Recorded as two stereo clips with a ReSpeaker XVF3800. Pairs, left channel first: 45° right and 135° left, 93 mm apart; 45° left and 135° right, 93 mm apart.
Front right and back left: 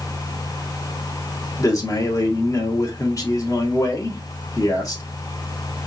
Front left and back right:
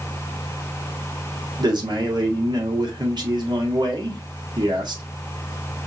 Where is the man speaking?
95° right, 1.5 m.